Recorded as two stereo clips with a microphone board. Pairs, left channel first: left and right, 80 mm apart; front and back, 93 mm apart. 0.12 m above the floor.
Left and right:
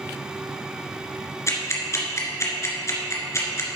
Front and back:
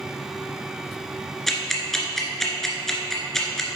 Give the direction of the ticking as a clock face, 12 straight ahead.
9 o'clock.